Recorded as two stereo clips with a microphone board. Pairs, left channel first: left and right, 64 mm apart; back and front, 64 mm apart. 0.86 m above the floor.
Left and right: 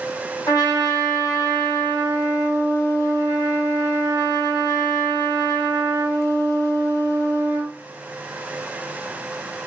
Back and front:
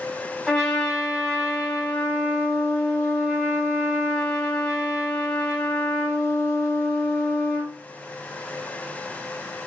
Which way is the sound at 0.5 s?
100° left.